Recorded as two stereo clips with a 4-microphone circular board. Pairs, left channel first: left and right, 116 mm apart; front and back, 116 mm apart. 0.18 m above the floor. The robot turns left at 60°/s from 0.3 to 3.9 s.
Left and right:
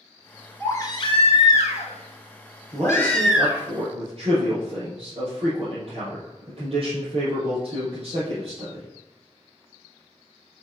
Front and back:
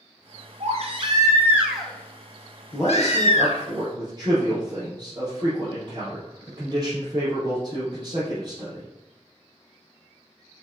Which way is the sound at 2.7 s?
55° right.